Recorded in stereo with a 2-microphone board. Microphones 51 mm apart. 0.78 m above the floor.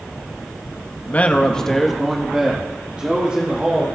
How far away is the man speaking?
About 0.8 m.